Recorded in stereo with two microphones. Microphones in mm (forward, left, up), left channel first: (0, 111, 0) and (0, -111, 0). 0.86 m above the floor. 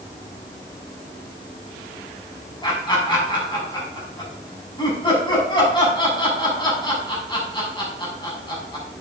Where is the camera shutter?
I don't hear a camera shutter.